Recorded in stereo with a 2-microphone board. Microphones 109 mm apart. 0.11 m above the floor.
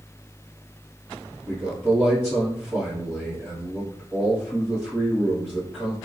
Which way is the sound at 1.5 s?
15° right (ahead or behind).